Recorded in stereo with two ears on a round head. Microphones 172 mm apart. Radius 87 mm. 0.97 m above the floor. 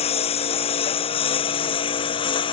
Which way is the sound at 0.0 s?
35° left (ahead or behind).